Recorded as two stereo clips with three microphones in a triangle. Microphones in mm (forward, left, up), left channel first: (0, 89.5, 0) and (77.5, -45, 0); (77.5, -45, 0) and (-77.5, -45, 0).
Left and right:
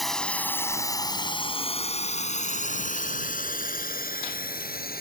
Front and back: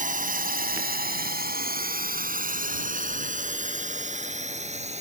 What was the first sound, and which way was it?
A drone, 150° right.